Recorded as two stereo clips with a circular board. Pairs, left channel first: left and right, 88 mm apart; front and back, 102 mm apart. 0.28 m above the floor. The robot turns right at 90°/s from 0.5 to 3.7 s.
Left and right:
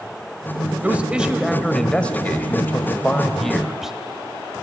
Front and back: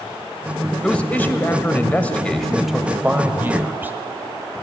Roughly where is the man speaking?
Ahead right.